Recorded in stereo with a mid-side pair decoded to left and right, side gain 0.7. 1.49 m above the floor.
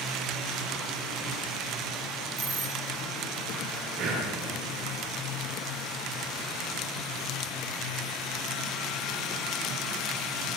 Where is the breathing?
55° right, 9 m.